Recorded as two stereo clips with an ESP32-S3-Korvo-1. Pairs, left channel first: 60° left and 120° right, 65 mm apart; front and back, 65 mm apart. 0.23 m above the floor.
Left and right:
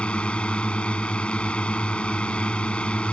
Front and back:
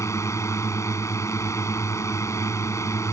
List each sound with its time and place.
0.0 s a drone: 10° right